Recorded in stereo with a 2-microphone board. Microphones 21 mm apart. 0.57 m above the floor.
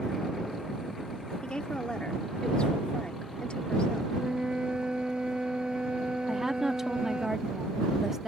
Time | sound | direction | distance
1.4 | a woman speaking | 50° left (ahead or behind) | ?
4.1 | a flute | 45° right (ahead or behind) | ?
6.3 | a woman speaking | 20° right (ahead or behind) | ?